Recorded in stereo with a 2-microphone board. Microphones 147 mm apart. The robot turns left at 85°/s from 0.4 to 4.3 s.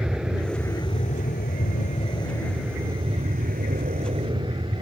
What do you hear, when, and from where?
0.0 s an aircraft: 175° right; by 4.8 s 145° right